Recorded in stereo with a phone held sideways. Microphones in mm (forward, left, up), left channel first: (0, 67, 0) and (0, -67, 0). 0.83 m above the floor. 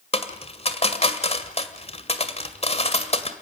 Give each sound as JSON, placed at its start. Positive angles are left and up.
{"t": 0.1, "sound": "a dropped coin", "side_deg": 50, "distance_m": 1.8}